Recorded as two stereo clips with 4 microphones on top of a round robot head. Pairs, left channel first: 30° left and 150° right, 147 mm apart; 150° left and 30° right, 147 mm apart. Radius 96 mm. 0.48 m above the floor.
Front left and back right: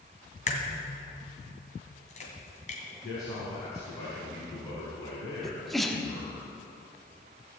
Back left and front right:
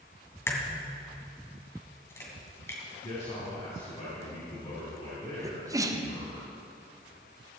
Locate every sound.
0.5 s a crack: 75° left, 2 m
3.0 s a man speaking: 95° left, 4 m
5.4 s a sneeze: 55° right, 1.4 m